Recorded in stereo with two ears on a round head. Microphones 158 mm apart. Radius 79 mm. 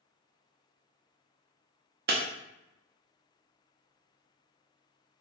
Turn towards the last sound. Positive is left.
turn(degrees=-55)  # may be behind; listen again after turning